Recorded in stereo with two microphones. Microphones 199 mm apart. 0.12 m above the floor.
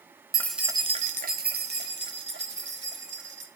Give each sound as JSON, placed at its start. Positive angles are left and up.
{"t": 0.3, "sound": "keys jangling", "side_deg": 15, "distance_m": 0.8}